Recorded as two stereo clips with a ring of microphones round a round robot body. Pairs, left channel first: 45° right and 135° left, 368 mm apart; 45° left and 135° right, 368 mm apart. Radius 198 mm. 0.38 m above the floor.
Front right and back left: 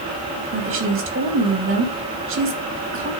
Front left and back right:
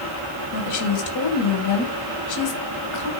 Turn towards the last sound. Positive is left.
turn(degrees=80)